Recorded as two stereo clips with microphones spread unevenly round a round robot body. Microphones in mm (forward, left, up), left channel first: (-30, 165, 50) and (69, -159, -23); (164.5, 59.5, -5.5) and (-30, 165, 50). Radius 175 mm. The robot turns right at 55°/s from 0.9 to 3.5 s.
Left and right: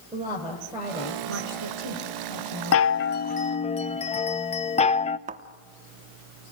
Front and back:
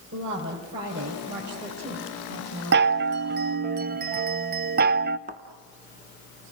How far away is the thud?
About 0.8 m.